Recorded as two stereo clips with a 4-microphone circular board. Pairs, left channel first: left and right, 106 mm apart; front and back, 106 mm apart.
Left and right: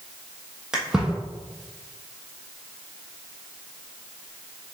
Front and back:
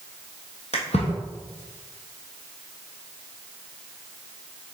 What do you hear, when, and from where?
0.7 s a splash: 5° right, 1.4 m